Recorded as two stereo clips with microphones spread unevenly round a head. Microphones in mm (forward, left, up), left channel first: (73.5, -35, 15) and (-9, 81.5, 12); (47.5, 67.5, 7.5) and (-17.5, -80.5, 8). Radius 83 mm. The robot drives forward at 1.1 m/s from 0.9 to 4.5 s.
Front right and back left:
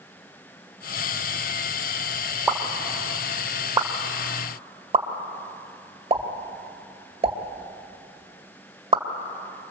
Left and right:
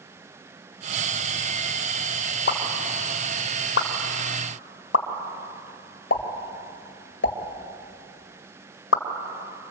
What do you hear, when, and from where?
2.5 s a pop: 40° left, 3.5 m; by 9.0 s 80° left, 2 m